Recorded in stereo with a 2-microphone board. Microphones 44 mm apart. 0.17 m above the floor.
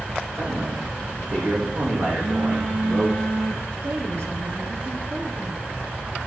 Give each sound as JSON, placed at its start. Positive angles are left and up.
{"t": 0.3, "sound": "a man speaking", "side_deg": -55, "distance_m": 7.5}
{"t": 2.1, "sound": "a phone buzzing", "side_deg": -75, "distance_m": 5.0}
{"t": 3.8, "sound": "a woman speaking", "side_deg": -65, "distance_m": 4.0}